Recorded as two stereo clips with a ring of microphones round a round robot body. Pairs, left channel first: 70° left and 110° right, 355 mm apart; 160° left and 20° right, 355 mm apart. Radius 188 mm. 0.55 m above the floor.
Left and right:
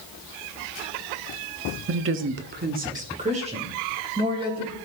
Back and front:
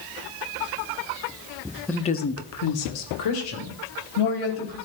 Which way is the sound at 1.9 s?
115° right.